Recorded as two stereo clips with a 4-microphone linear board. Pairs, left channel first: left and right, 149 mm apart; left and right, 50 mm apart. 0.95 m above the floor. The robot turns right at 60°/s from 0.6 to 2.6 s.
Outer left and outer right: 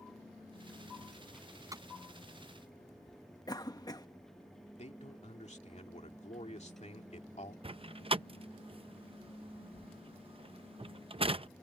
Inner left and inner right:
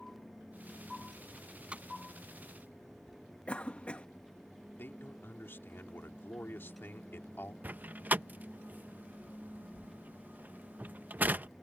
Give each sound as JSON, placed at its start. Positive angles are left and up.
{"t": 1.3, "sound": "a door slam", "side_deg": 0}
{"t": 3.5, "sound": "a cough", "side_deg": 25}
{"t": 4.8, "sound": "a man speaking", "side_deg": 50}
{"t": 7.6, "sound": "a door slam", "side_deg": -40}